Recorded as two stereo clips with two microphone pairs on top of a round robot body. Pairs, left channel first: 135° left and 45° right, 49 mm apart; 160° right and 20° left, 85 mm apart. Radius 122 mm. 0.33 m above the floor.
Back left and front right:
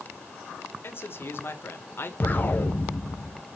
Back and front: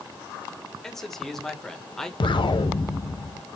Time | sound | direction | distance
0.8 | a man speaking | 120° left | 1.8 m
2.2 | an explosion | 170° right | 1.2 m